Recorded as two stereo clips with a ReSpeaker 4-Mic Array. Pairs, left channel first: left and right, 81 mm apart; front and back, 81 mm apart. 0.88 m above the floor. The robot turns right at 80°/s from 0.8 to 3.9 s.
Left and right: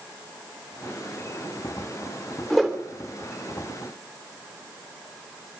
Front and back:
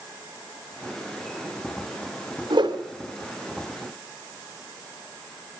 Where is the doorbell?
I don't hear a doorbell.